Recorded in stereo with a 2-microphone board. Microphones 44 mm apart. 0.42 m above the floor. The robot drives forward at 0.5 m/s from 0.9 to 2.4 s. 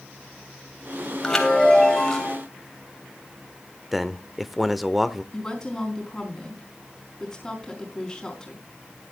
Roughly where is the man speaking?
Centre.